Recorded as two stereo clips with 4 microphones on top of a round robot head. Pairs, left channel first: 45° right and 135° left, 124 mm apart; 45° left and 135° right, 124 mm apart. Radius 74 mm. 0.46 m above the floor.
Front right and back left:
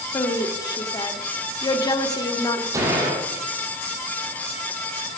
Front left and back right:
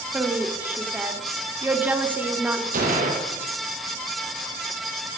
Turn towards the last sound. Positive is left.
turn(degrees=-160)